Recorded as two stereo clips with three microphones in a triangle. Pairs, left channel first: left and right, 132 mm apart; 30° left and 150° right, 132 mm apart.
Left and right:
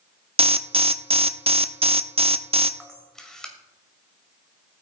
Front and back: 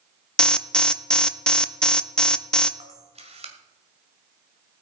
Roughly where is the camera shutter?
Behind.